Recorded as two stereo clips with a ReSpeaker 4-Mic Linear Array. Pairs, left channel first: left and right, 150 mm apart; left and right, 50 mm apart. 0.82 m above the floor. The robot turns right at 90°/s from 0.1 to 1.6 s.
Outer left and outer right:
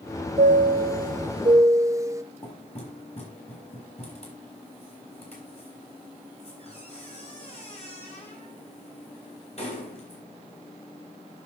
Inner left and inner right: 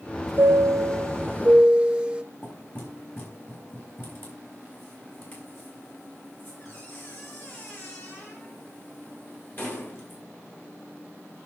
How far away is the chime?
About 0.8 m.